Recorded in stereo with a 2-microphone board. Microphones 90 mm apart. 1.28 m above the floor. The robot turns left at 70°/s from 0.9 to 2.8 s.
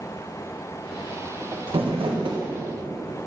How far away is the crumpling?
About 1.3 m.